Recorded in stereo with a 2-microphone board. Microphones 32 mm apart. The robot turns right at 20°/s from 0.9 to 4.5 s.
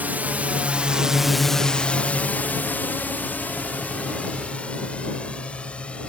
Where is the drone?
60° right (ahead or behind); by 6.1 s 40° left (ahead or behind).